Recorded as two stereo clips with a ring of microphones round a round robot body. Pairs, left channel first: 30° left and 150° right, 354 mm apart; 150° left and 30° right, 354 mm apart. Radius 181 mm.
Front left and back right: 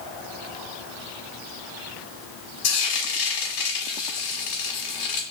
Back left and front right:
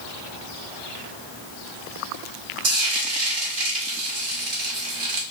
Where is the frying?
5° left, 1.4 m.